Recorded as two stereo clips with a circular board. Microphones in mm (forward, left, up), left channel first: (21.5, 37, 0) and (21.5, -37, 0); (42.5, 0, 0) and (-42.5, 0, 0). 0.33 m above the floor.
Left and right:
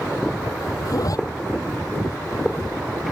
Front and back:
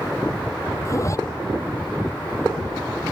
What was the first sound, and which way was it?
A zipper, 55° left.